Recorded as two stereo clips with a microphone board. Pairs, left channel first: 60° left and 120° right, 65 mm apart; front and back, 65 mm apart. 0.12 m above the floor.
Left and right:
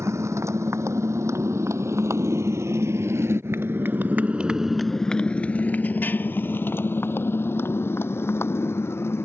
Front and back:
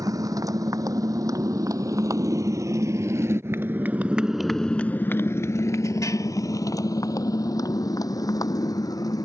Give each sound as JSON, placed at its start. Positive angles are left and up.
{"t": 0.0, "sound": "a motorcycle", "azimuth_deg": -160}